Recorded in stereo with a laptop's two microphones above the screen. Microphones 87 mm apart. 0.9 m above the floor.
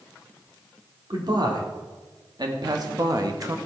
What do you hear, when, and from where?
1.1 s a man speaking: 60° right (ahead or behind), 2.5 m; by 3.6 s 40° right (ahead or behind), 1.1 m